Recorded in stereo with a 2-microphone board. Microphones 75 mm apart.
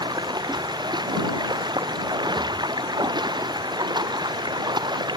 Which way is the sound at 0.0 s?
80° right.